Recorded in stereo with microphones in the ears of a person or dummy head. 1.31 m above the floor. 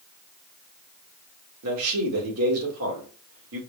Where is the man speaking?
80° right, 1.8 m.